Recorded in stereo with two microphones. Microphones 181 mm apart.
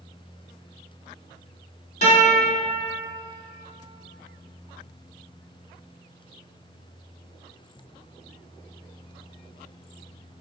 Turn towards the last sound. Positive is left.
turn(degrees=40)  # may be behind; listen again after turning